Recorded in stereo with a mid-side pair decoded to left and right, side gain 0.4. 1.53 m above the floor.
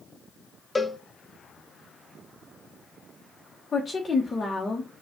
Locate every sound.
0.8 s a cowbell: 15° left, 0.7 m
3.7 s a woman speaking: 35° left, 1.1 m